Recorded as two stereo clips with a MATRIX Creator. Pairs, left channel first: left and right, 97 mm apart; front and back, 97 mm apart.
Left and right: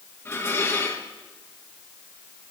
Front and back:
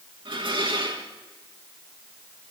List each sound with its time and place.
0.2 s dishes clattering: 155° left, 3 m